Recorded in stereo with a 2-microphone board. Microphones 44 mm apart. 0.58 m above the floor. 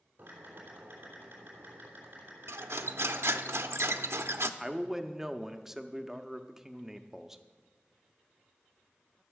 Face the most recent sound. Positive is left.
turn(degrees=-5)  # may be behind; listen again after turning